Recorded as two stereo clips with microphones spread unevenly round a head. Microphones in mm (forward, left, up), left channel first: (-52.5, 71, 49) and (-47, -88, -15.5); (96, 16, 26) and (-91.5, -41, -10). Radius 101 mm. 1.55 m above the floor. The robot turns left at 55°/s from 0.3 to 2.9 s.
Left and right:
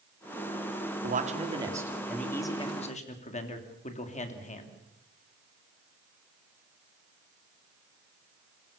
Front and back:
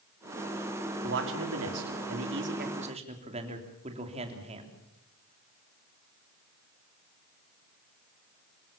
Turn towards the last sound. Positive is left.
turn(degrees=135)